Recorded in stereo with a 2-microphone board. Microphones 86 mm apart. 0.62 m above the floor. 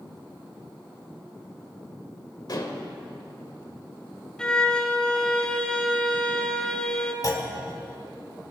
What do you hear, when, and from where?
2.5 s dishes clattering: 50° left (ahead or behind), 1.6 m
4.4 s a violin: 10° left (ahead or behind), 1.2 m
7.2 s a clunk: 45° left (ahead or behind), 1.8 m